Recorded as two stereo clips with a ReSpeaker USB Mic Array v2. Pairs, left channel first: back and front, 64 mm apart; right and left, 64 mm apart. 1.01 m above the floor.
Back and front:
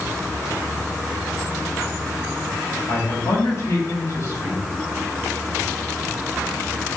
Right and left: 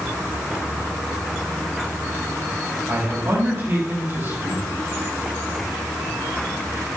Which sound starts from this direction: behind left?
A man speaking, at 2.9 s.